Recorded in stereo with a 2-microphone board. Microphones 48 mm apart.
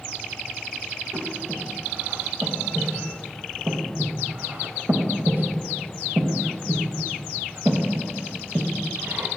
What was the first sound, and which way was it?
Breathing, 50° right (ahead or behind).